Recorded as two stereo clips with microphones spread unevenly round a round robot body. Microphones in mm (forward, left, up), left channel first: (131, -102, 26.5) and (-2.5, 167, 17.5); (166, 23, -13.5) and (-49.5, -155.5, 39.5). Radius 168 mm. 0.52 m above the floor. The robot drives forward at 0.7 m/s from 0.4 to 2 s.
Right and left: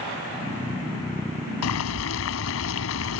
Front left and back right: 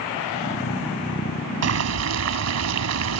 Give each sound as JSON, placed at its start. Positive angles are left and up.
{"t": 1.6, "sound": "boiling", "azimuth_deg": -110}